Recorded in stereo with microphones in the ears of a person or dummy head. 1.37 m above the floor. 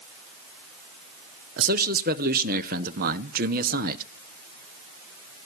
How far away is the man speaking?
About 0.8 m.